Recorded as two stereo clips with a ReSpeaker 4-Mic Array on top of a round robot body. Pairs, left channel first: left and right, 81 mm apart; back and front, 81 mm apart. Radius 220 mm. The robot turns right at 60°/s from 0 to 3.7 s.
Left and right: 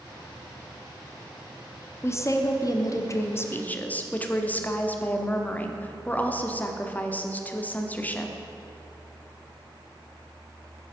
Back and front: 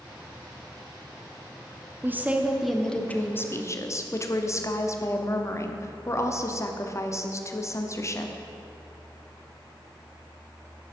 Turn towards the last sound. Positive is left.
turn(degrees=150)